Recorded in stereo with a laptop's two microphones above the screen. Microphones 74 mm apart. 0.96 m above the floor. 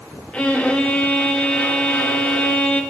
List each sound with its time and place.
0.3 s a violin: 15° left (ahead or behind), 0.8 m